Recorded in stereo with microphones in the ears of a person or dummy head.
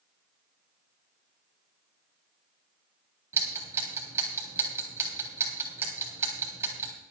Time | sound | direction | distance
3.3 | ticking | 15° right (ahead or behind) | 3 m